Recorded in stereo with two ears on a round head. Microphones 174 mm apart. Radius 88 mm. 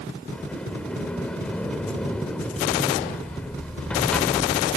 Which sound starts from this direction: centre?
A sliding door, at 0.3 s.